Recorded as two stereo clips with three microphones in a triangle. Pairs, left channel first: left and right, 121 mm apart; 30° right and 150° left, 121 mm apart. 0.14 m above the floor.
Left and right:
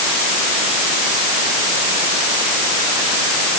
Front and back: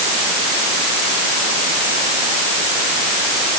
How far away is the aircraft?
I don't hear an aircraft.